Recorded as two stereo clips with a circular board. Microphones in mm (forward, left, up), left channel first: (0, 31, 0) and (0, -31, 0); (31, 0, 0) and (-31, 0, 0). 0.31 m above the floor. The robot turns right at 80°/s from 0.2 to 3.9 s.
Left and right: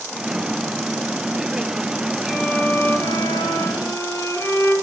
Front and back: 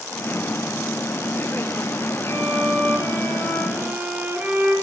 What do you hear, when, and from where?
2.2 s a violin: 15° right, 6.5 m; by 4.8 s 115° left, 6.5 m